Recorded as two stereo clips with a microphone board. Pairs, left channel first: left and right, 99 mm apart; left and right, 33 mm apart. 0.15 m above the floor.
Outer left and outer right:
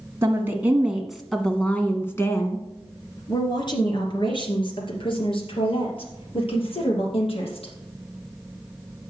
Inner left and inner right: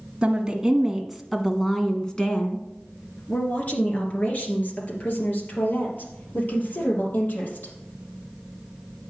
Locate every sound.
0.2 s a woman speaking: 25° right (ahead or behind), 1.6 m; by 7.7 s 70° left (ahead or behind), 4.5 m